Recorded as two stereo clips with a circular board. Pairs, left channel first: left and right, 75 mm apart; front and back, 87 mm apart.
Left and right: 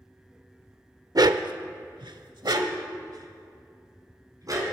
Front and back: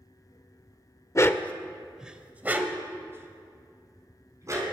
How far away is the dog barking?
About 0.5 m.